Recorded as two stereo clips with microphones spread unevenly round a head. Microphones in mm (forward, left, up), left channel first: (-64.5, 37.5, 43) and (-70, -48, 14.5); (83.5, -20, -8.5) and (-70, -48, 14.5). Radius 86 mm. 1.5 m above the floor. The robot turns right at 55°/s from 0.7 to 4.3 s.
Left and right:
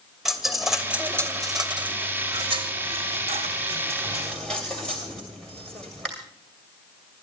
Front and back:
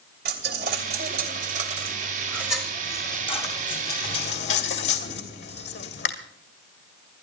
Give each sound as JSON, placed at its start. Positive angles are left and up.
{"t": 0.2, "sound": "a dropped coin", "azimuth_deg": 170, "distance_m": 2.5}